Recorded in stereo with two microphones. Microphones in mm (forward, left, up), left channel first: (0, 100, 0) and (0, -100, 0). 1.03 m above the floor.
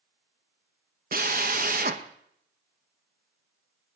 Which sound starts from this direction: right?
A drill, at 1.1 s.